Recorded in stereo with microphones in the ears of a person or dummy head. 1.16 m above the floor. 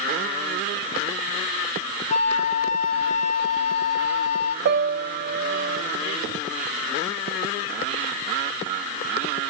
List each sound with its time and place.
2.1 s a flute: 40° left (ahead or behind), 0.8 m
4.7 s a piano: 50° right (ahead or behind), 0.6 m